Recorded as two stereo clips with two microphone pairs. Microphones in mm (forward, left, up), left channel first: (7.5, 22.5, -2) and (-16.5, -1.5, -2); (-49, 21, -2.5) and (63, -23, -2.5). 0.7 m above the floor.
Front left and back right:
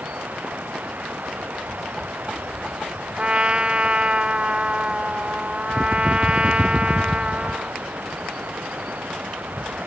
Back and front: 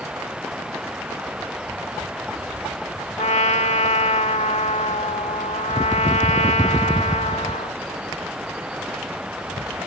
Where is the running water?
105° right.